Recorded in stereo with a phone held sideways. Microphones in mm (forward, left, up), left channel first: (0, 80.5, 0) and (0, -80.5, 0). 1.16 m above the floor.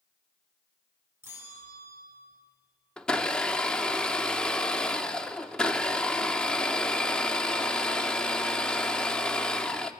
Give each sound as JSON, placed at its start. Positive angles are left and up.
{"t": 1.2, "sound": "a bell", "side_deg": -15, "distance_m": 5.0}
{"t": 3.0, "sound": "a blender", "side_deg": 5, "distance_m": 0.8}